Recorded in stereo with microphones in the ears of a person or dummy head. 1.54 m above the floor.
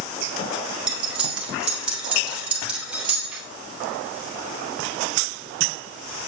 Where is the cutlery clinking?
5° right (ahead or behind), 2.0 m.